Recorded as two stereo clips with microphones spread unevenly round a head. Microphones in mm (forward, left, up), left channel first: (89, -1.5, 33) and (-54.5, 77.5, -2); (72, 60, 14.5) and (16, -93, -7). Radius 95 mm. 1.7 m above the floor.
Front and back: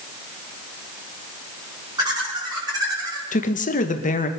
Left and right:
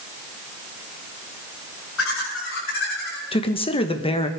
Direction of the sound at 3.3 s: 15° left.